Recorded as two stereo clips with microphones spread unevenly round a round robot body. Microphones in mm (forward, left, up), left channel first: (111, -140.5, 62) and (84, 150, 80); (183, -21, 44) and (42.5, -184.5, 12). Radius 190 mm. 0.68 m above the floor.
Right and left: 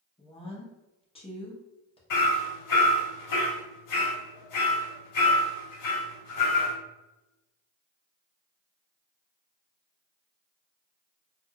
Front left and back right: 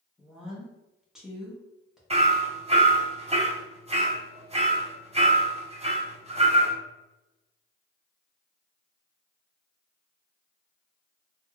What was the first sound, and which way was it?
A woman speaking, 70° right.